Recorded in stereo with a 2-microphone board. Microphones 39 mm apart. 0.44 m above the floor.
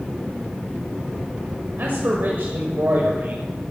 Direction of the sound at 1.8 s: 60° right (ahead or behind).